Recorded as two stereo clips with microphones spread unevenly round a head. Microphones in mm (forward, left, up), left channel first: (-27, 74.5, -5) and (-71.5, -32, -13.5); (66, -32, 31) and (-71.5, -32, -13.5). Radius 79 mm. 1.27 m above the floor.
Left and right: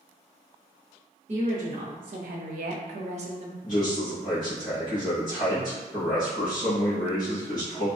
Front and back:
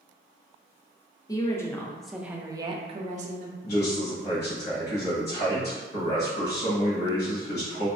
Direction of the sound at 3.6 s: Straight ahead.